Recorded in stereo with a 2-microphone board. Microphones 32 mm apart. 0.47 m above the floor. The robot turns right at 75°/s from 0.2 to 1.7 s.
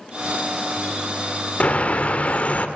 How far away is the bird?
About 1.1 m.